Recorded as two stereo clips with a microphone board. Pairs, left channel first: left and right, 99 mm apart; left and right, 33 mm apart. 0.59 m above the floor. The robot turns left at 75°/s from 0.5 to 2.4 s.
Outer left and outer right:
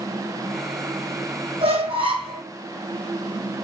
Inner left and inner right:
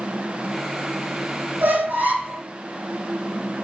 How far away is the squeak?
About 1.7 m.